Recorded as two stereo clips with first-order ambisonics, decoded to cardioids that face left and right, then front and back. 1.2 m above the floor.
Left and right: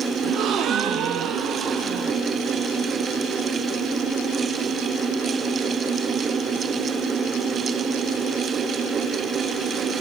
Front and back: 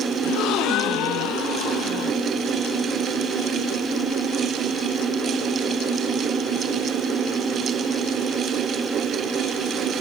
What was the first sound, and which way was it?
A gasp, 40° right.